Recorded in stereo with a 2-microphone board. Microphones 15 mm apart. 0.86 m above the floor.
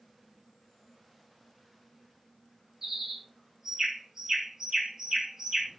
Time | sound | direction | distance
2.8 | a bird | 45° right (ahead or behind) | 3.5 m